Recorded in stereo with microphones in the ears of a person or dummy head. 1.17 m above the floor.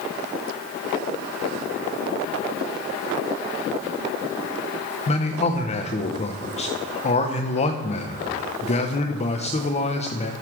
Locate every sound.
5.1 s a man speaking: 35° left (ahead or behind), 1.0 m